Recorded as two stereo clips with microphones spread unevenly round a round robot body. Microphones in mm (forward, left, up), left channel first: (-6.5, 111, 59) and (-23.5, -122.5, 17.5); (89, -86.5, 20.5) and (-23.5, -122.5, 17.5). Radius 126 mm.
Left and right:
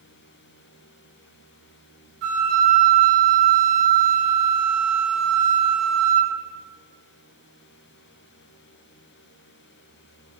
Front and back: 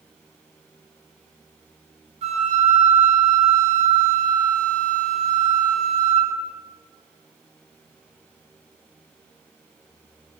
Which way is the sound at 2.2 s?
130° right.